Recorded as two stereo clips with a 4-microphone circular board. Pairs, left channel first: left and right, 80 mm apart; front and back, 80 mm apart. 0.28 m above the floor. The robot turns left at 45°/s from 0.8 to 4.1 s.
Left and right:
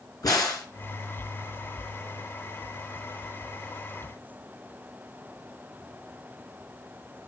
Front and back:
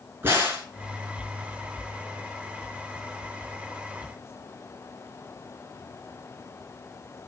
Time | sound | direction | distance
0.2 | a crack | 120° left | 4.5 m